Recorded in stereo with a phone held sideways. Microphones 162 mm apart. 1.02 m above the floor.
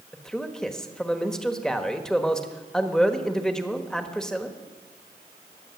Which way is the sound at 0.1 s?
5° left (ahead or behind).